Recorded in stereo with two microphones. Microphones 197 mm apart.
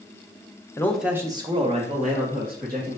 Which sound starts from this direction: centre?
A man speaking, at 0.8 s.